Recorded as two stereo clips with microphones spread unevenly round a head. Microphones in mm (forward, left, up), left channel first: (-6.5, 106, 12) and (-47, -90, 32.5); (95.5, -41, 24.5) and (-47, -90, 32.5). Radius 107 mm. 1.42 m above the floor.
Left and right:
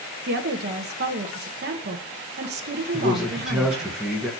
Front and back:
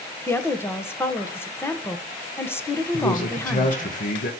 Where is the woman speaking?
55° right, 1.2 m.